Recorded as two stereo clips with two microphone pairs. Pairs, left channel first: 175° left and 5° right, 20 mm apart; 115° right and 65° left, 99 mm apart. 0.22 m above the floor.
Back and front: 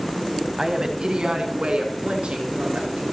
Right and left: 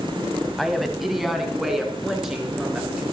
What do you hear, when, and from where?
0.6 s a woman speaking: 25° right, 1.2 m; by 3.0 s 20° right, 3.5 m